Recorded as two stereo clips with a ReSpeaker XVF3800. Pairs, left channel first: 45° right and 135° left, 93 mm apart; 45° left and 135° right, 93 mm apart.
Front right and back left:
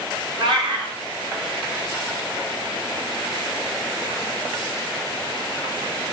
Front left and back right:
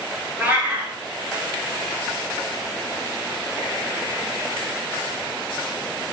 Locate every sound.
0.4 s a cat meowing: 155° left, 0.8 m